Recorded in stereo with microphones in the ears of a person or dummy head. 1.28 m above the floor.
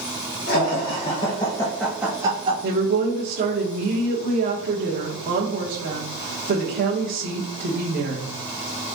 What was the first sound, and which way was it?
Laughter, 50° left (ahead or behind).